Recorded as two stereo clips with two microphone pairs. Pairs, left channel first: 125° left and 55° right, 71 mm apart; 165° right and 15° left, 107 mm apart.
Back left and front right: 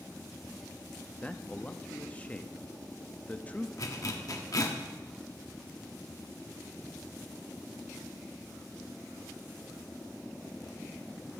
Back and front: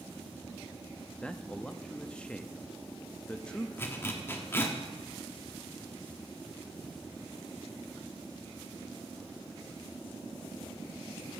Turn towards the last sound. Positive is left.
turn(degrees=135)